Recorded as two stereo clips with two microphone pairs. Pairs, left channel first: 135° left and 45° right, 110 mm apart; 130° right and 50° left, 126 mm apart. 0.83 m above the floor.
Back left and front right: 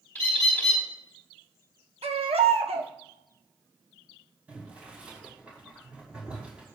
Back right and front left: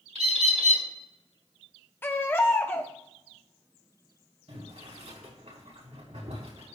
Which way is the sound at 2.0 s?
60° right.